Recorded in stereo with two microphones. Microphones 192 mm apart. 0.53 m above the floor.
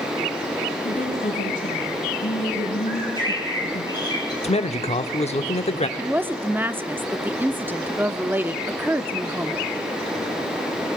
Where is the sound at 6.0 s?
10° right (ahead or behind), 0.7 m.